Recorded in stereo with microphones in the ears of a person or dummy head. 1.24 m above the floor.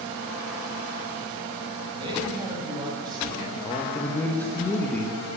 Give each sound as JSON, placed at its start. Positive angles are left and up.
{"t": 2.0, "sound": "a man speaking", "side_deg": -30, "distance_m": 5.0}
{"t": 3.6, "sound": "a man speaking", "side_deg": 10, "distance_m": 1.3}